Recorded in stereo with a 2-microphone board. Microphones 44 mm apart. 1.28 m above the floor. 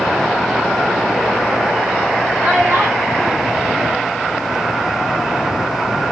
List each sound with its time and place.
2.4 s a child speaking: 75° right (ahead or behind), 2.5 m; by 4.8 s 55° right (ahead or behind), 1.4 m